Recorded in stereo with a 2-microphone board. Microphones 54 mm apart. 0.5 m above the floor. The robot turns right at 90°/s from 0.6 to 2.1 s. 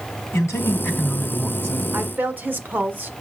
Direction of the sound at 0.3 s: 120° left.